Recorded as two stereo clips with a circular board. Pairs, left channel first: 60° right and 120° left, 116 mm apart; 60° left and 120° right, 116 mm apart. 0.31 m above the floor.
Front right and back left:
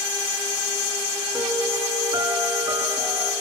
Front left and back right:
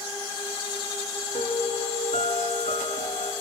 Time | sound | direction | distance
1.3 | a piano | 65° left | 2 m